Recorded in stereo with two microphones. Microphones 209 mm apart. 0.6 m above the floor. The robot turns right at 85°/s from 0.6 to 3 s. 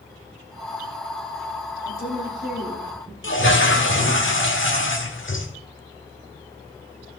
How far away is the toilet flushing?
About 1.4 m.